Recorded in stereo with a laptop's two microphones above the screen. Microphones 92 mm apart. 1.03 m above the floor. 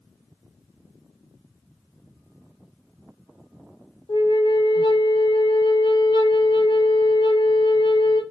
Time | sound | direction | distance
4.1 | a flute | 55° left (ahead or behind) | 1.1 m